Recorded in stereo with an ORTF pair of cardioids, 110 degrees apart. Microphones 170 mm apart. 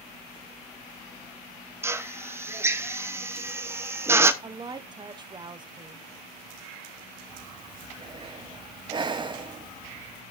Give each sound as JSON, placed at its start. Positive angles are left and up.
{"t": 1.8, "sound": "a drill", "azimuth_deg": -15, "distance_m": 0.8}
{"t": 4.4, "sound": "a woman speaking", "azimuth_deg": -25, "distance_m": 0.8}
{"t": 7.3, "sound": "breathing", "azimuth_deg": -25, "distance_m": 0.8}